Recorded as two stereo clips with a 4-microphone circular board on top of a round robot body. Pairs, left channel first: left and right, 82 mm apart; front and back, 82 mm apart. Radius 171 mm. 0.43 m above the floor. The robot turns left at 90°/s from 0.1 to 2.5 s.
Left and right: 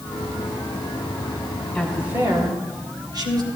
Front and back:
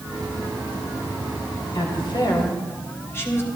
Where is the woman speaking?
10° left, 2.5 m; by 3.5 s 60° right, 2.5 m.